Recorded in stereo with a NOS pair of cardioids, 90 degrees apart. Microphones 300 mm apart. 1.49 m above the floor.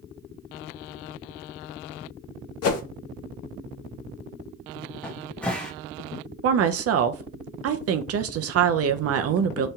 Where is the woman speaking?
55° right, 0.6 m.